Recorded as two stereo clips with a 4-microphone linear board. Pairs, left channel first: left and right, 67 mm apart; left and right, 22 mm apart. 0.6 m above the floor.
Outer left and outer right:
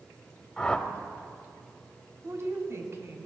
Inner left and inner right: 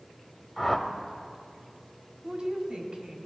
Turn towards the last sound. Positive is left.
turn(degrees=-45)  # may be behind; listen again after turning